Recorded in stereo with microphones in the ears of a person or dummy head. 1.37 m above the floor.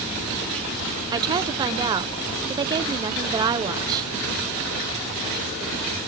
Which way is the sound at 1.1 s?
25° right (ahead or behind).